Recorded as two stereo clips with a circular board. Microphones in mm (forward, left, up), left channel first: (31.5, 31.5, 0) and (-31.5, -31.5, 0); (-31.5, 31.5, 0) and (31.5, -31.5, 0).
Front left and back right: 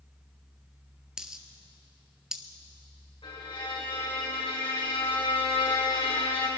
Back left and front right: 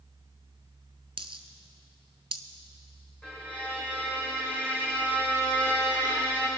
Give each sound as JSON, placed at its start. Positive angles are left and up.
{"t": 1.2, "sound": "a dropped coin", "azimuth_deg": -55, "distance_m": 0.8}
{"t": 3.2, "sound": "a violin", "azimuth_deg": 60, "distance_m": 5.0}